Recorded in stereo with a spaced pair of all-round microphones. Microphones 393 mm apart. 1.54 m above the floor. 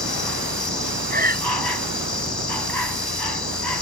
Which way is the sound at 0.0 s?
70° left (ahead or behind).